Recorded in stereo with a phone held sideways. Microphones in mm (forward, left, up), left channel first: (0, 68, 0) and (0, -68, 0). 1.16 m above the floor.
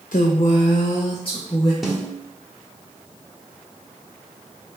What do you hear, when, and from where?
0.1 s a woman speaking: 80° left, 0.5 m; by 1.7 s 35° left (ahead or behind), 1.1 m
1.8 s a snare drum: centre (ahead or behind), 1.4 m